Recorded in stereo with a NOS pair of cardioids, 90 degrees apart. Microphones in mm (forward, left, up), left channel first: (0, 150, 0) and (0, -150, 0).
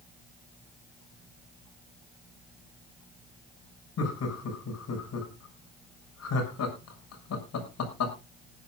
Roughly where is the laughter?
Ahead left.